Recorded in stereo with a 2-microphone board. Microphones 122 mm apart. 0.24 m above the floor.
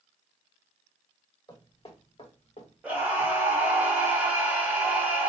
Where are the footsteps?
35° left (ahead or behind), 1.3 m; by 3.8 s 80° left, 1.3 m.